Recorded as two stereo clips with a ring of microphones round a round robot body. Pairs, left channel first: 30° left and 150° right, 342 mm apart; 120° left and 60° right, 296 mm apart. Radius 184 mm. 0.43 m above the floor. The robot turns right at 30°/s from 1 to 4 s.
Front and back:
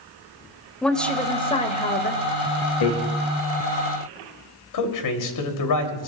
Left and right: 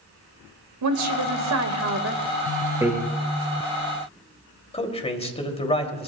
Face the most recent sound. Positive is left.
turn(degrees=50)